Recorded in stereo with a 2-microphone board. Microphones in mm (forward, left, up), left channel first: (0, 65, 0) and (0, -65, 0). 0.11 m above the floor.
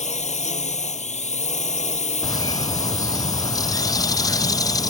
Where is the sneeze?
I don't hear a sneeze.